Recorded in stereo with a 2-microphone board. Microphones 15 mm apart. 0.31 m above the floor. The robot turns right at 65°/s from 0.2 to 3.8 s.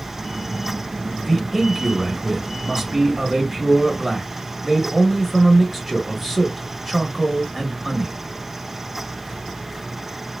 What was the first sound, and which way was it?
A man speaking, 175° left.